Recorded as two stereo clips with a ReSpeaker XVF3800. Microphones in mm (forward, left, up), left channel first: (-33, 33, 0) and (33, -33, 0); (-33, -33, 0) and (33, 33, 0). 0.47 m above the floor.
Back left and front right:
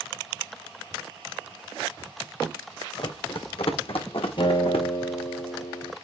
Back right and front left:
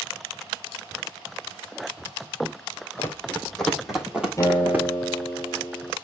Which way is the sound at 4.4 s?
160° left.